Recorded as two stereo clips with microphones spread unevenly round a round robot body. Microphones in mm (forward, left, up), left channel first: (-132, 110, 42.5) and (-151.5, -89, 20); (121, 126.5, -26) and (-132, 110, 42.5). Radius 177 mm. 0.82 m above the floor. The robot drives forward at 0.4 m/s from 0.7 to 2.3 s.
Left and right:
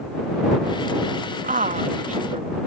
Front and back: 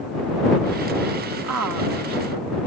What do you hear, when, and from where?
1.4 s a woman speaking: 130° right; by 2.6 s 140° right